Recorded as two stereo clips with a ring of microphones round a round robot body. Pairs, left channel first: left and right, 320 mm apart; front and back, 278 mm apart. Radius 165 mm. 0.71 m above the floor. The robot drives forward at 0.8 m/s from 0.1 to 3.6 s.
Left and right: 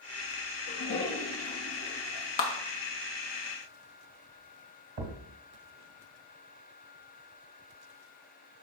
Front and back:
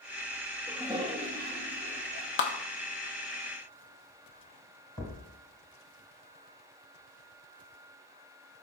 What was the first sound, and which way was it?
A toilet flushing, 95° left.